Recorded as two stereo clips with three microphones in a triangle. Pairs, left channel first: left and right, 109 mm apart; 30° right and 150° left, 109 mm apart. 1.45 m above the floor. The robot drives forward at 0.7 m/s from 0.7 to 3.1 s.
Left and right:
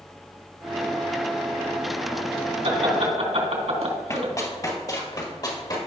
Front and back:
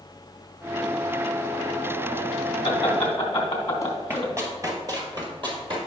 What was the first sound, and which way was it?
Laughter, 85° right.